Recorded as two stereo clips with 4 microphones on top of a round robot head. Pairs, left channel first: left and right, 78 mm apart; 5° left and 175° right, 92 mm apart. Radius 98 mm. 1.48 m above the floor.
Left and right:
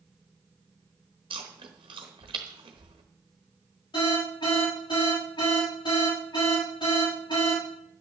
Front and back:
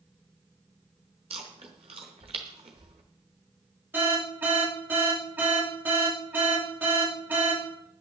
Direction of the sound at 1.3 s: 135° right.